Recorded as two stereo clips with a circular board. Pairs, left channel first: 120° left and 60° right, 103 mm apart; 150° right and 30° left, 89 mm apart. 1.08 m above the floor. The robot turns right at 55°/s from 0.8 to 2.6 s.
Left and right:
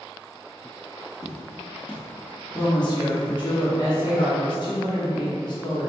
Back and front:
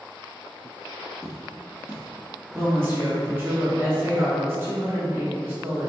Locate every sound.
1.2 s footsteps: 50° right, 1.3 m; by 3.4 s 170° right, 1.2 m
2.5 s a woman speaking: 85° left, 1.0 m; by 5.9 s 90° left, 1.0 m